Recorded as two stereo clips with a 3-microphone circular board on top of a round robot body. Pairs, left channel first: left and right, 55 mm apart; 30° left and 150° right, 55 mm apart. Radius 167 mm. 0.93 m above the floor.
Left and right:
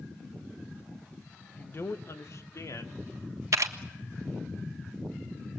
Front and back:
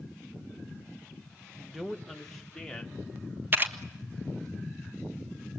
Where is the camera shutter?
100° right, 1.5 m.